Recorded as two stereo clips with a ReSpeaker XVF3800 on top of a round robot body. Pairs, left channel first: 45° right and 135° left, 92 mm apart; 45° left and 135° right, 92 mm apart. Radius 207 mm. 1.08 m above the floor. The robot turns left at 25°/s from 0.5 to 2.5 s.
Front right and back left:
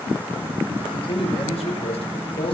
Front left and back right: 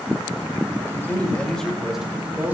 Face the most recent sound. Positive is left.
turn(degrees=-60)